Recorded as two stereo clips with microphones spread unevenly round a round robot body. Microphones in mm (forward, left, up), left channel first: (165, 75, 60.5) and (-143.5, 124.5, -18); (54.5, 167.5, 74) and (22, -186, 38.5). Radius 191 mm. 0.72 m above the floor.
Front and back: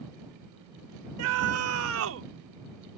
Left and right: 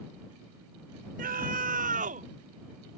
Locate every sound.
1.2 s a scream: 160° right